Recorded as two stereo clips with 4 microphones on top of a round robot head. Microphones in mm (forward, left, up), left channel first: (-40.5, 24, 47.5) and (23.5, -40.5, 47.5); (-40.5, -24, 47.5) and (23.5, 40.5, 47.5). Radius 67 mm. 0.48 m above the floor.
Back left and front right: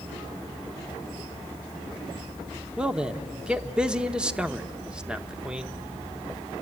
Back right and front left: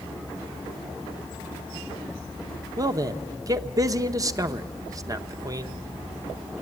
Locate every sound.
2.8 s a man speaking: 30° left, 0.9 m